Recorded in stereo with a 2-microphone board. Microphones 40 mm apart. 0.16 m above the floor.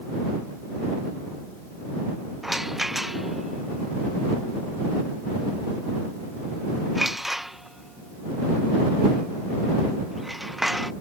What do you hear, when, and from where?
2.4 s a rattle: 5° right (ahead or behind)